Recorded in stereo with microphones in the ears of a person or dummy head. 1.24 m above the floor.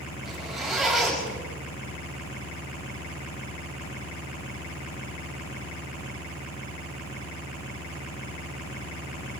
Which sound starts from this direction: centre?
A zipper, at 0.2 s.